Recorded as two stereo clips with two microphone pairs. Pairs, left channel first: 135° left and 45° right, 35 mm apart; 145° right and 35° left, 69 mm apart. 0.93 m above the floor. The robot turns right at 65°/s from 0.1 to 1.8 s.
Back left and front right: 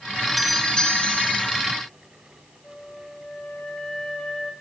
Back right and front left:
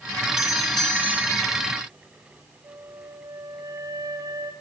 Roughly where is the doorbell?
Ahead left.